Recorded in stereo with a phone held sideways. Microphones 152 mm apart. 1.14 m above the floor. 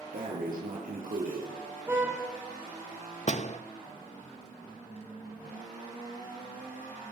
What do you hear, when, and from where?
0.1 s breathing: 70° right (ahead or behind), 6.5 m
1.9 s a car horn: 15° right (ahead or behind), 5.5 m
3.3 s a door slam: 50° left (ahead or behind), 0.8 m